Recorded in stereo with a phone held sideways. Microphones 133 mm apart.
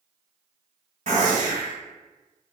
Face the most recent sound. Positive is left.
turn(degrees=-55)  # may be behind; listen again after turning